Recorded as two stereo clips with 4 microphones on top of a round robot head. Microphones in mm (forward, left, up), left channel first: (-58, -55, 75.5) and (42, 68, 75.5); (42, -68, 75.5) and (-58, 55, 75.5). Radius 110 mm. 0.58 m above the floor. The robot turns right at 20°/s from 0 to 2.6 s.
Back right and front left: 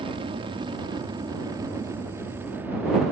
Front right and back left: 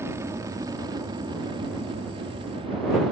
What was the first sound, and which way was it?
An aircraft, 65° left.